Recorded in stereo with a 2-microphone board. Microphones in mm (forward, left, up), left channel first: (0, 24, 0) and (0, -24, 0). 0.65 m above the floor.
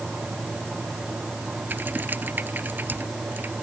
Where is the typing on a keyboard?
40° right (ahead or behind).